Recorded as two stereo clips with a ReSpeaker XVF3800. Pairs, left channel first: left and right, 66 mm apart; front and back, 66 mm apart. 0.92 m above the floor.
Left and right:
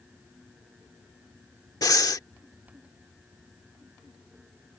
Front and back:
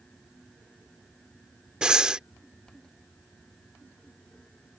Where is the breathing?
105° left.